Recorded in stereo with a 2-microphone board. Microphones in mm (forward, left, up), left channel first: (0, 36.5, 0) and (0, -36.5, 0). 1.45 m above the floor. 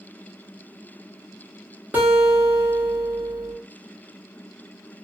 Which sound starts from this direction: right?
A guitar, at 1.9 s.